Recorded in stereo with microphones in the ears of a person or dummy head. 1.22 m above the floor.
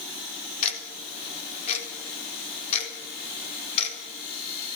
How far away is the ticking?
About 4 m.